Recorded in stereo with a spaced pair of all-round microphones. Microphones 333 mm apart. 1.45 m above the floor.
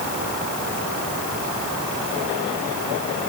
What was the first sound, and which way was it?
Only background noise.